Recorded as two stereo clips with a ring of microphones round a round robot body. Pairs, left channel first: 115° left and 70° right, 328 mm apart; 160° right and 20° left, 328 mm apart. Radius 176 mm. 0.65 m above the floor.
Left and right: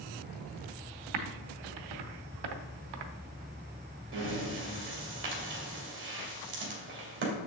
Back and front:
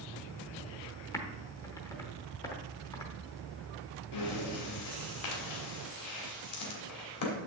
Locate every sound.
1.1 s typing on a keyboard: 75° right, 0.8 m
4.1 s breathing: 120° right, 2.5 m